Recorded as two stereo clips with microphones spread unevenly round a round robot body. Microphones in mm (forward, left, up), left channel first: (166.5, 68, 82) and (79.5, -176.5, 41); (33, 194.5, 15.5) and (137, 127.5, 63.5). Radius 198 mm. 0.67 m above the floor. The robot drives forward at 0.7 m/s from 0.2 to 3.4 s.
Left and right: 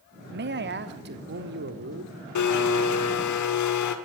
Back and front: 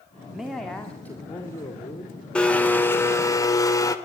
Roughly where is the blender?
Left.